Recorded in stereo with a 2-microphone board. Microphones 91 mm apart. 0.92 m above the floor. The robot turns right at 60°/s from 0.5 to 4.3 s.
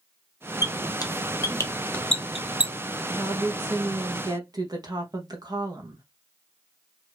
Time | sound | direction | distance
0.6 | a squeak | 45° left (ahead or behind) | 0.7 m
3.1 | a woman speaking | 145° right | 1.2 m